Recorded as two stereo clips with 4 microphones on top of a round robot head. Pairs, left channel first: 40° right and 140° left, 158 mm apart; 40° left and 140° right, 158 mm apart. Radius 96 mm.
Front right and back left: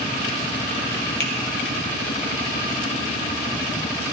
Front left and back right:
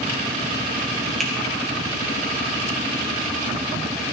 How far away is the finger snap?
About 2.5 m.